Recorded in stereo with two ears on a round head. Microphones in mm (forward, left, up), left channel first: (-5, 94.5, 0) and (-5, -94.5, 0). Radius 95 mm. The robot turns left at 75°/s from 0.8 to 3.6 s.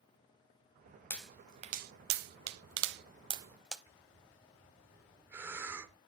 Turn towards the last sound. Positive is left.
turn(degrees=-10)  # may be behind; listen again after turning